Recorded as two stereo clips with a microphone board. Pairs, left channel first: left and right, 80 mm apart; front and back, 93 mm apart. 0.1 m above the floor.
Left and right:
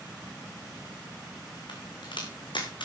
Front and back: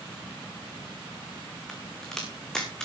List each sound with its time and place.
1.7 s a crack: 85° left, 3 m